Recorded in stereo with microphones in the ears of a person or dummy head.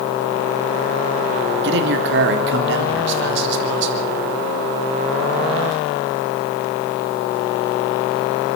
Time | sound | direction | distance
1.6 | a man speaking | 65° right (ahead or behind) | 2.5 m